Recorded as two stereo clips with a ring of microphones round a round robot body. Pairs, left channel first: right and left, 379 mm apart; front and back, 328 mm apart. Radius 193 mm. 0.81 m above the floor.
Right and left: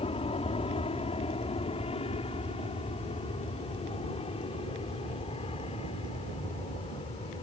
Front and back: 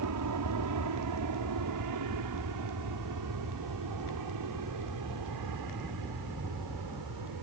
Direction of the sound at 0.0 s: 160° right.